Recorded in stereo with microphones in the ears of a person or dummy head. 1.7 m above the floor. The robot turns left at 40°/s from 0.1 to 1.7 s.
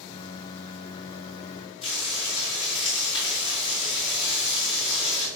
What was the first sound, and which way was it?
Frying, 35° left (ahead or behind).